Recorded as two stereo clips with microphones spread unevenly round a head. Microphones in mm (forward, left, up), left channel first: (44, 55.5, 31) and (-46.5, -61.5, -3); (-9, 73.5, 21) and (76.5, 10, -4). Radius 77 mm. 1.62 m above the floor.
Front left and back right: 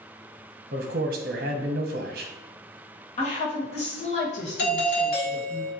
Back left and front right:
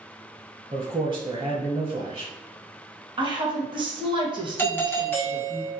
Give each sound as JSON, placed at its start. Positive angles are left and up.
{"t": 0.7, "sound": "a man speaking", "azimuth_deg": -100, "distance_m": 0.9}
{"t": 3.2, "sound": "a woman speaking", "azimuth_deg": 10, "distance_m": 1.9}
{"t": 4.6, "sound": "a doorbell", "azimuth_deg": 70, "distance_m": 1.4}